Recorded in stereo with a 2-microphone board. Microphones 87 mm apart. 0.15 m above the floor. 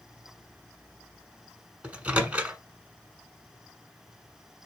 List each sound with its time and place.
1.8 s a microwave: 15° right (ahead or behind), 1.0 m